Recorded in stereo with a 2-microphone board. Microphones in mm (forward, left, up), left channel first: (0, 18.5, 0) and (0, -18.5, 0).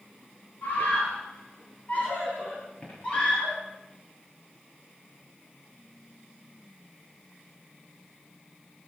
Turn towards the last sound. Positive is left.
turn(degrees=30)  # may be behind; listen again after turning